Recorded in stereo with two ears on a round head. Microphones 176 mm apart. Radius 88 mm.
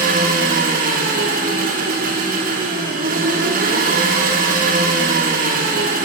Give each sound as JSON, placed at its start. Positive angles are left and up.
{"t": 0.0, "sound": "an engine running", "side_deg": -40, "distance_m": 2.0}